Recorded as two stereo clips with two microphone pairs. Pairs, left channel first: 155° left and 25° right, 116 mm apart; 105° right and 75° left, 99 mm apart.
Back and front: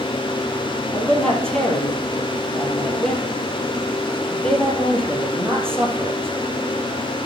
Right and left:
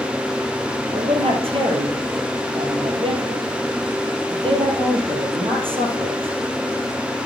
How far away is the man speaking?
About 3 m.